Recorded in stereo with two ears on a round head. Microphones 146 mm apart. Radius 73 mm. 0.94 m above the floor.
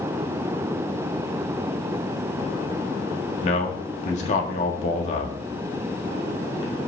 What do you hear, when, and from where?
3.4 s a man speaking: 45° left (ahead or behind), 1.6 m